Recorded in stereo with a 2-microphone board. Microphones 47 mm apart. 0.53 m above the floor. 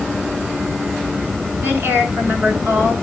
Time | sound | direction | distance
1.6 | a woman speaking | 60° right (ahead or behind) | 7.5 m